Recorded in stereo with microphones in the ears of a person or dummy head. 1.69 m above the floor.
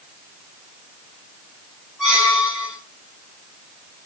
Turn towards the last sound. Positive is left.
turn(degrees=-5)  # may be behind; listen again after turning